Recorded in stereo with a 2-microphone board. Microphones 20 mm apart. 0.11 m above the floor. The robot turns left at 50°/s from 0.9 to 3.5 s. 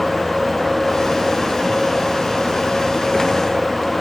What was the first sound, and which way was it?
Only background noise.